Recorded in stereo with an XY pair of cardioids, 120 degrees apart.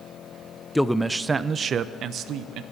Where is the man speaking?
5° left, 0.6 m; by 2.6 s 70° right, 1.1 m.